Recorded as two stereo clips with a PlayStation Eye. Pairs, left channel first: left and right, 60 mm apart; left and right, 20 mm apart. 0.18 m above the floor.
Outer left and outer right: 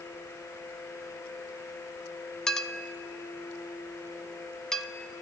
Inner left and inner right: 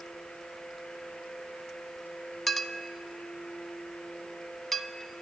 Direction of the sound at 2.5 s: 10° left (ahead or behind).